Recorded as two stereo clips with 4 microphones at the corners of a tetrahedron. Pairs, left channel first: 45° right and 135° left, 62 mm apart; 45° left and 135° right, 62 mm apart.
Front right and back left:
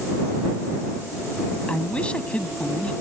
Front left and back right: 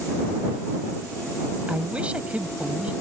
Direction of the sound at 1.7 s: 90° right.